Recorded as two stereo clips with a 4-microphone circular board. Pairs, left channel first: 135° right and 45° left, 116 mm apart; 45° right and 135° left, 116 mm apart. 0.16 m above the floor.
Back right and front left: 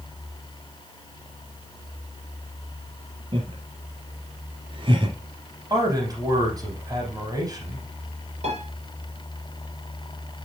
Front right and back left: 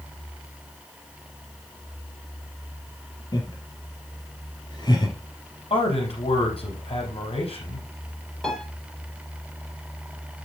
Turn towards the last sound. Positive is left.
turn(degrees=40)